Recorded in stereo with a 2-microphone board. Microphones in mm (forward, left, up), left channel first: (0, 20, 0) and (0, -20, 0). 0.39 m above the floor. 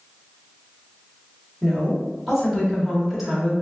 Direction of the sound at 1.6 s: 5° right (ahead or behind).